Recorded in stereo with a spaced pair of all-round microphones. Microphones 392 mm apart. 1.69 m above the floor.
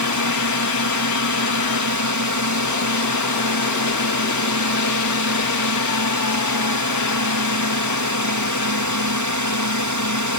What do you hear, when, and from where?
0.0 s a drone: 50° right (ahead or behind)